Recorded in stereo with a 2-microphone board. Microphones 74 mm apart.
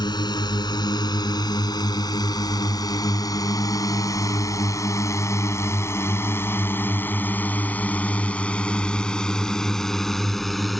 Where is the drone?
75° left (ahead or behind); by 10.8 s centre (ahead or behind).